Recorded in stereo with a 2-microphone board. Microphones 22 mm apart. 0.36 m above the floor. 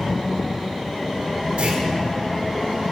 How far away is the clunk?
About 6 m.